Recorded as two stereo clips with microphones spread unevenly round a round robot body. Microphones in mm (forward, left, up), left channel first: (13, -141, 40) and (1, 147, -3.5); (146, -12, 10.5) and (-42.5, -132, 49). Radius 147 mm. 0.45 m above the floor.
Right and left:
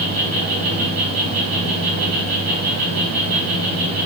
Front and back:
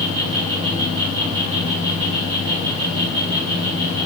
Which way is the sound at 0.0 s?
140° left.